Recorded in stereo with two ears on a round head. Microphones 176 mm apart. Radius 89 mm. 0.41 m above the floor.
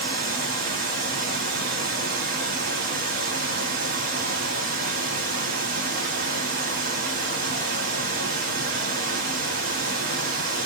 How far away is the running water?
About 1.0 m.